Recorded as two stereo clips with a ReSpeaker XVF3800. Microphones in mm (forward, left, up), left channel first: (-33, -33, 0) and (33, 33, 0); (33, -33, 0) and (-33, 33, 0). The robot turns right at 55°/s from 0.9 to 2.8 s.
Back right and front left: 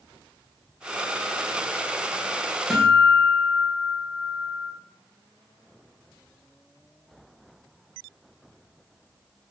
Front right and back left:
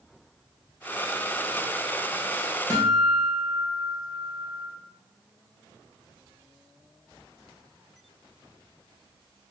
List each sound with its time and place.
2.7 s a guitar: 135° left, 1.1 m; by 4.7 s 145° left, 1.1 m